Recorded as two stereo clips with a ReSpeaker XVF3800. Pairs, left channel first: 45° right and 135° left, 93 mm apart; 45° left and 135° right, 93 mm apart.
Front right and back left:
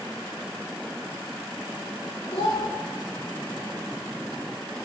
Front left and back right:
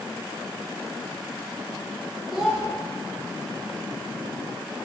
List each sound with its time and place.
2.3 s a child speaking: 45° right, 1.5 m